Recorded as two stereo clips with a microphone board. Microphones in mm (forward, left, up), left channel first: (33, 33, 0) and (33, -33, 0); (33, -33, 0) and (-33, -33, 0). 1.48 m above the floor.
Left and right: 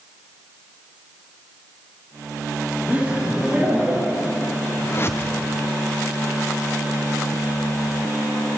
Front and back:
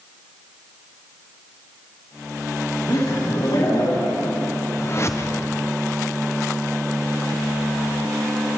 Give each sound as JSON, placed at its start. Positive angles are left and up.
{"t": 2.9, "sound": "laughter", "azimuth_deg": -20, "distance_m": 3.0}
{"t": 4.8, "sound": "a whoosh", "azimuth_deg": 40, "distance_m": 0.6}